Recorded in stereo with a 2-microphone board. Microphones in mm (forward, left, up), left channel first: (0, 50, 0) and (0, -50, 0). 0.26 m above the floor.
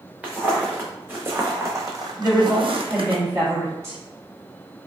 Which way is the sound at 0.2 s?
15° right (ahead or behind).